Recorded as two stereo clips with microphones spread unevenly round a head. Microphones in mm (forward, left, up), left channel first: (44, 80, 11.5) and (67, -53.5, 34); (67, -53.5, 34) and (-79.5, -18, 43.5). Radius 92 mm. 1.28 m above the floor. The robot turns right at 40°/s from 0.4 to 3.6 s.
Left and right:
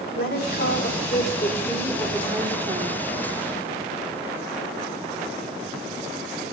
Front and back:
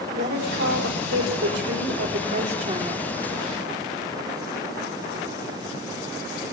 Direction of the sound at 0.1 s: 130° left.